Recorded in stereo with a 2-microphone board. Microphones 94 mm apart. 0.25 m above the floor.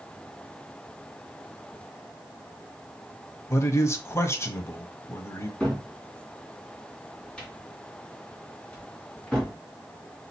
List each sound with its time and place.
3.5 s a man speaking: 30° left (ahead or behind), 1.1 m
5.6 s a cupboard door: 10° left (ahead or behind), 2 m